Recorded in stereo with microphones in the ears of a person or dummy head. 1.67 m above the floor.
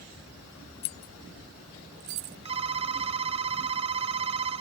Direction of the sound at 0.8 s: 25° left (ahead or behind).